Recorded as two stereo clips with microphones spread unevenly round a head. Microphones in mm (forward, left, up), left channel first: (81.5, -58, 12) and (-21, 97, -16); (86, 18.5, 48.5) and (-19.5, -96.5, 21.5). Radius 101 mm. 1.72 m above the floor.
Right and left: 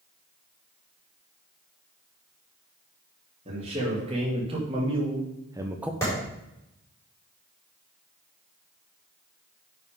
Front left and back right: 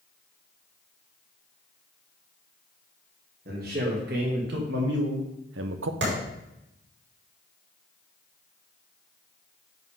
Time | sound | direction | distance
3.5 | a man speaking | 170° right | 3 m
6.0 | a clap | 135° right | 4.5 m